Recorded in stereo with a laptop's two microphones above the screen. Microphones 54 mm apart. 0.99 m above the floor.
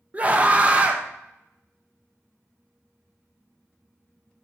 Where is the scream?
25° right (ahead or behind), 0.5 m.